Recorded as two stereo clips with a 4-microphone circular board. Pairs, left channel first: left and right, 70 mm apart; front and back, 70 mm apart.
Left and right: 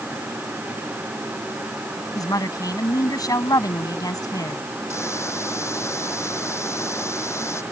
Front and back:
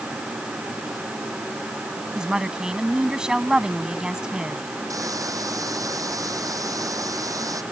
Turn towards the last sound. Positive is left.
turn(degrees=140)